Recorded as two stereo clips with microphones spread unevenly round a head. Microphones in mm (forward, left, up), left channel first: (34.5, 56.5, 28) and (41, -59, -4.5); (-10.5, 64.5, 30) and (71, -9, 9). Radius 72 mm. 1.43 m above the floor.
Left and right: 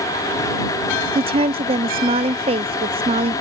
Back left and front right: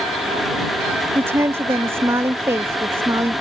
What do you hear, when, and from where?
1.1 s a woman speaking: 105° right